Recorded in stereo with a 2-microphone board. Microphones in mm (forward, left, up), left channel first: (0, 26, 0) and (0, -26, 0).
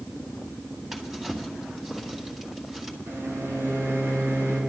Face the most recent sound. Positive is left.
turn(degrees=-55)  # may be behind; listen again after turning